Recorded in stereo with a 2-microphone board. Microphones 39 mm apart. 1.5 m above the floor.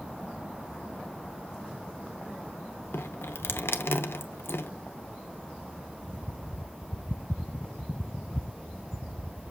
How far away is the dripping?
About 0.8 m.